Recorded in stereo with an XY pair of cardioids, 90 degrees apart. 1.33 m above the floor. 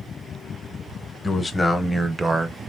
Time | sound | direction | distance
1.2 | a man speaking | 25° left | 0.9 m